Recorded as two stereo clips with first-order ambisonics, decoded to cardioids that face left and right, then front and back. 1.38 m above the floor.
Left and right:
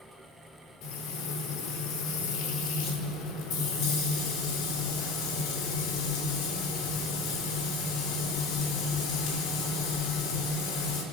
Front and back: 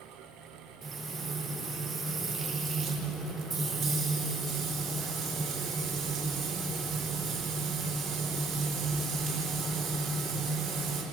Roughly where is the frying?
Left.